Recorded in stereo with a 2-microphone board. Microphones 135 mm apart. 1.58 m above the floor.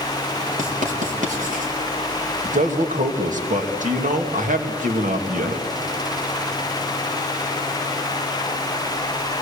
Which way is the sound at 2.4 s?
70° right (ahead or behind).